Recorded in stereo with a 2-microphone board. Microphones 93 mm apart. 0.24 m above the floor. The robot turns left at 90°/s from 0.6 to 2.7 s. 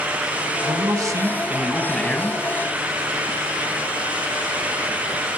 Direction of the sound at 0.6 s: 75° right.